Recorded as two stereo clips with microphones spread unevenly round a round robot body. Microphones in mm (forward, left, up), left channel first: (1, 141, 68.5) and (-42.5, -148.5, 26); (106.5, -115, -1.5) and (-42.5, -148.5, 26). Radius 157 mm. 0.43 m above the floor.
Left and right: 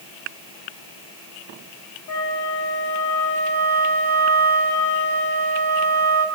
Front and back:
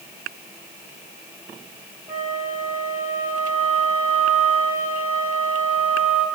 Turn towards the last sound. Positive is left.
turn(degrees=105)